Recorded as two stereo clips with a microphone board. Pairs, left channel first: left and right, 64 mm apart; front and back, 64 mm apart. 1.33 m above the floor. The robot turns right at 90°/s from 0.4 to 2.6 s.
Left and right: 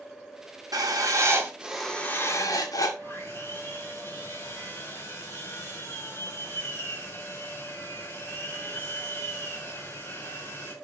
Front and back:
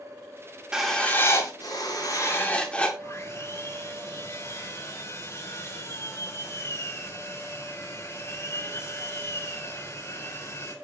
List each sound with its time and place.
0.7 s writing: 100° right, 2.5 m; by 2.9 s 70° left, 2.5 m
3.0 s sawing: 40° left, 6 m